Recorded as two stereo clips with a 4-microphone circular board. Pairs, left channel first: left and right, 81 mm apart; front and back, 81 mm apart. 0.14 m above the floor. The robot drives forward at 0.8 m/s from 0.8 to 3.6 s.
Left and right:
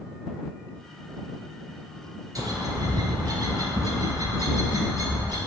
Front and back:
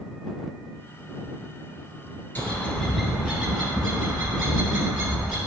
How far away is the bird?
About 1.1 m.